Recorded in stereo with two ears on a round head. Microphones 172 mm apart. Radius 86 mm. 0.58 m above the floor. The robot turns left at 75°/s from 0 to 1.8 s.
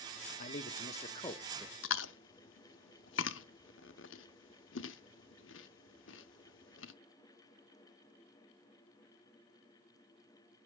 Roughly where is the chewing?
Left.